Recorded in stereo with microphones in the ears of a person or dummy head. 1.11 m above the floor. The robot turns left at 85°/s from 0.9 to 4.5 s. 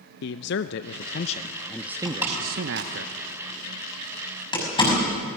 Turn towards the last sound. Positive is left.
turn(degrees=25)  # may be behind; listen again after turning